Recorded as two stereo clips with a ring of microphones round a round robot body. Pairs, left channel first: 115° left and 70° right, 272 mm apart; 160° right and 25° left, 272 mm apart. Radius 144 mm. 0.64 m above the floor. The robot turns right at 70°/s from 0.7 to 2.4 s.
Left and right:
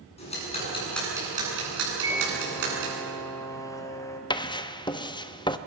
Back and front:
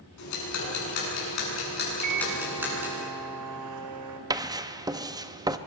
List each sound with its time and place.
0.2 s ticking: straight behind, 9 m; by 3.0 s 60° right, 9 m
2.0 s a microwave: 5° left, 2 m; by 4.2 s 35° left, 2 m
4.3 s writing: 70° left, 0.9 m